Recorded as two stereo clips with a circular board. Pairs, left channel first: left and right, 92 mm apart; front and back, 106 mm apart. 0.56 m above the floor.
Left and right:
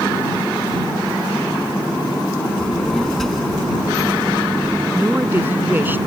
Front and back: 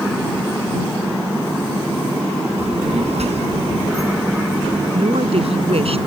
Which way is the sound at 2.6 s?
170° left.